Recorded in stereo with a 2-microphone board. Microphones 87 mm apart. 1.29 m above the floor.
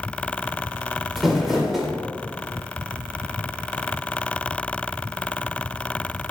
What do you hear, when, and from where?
1.2 s crumpling: centre (ahead or behind), 1.9 m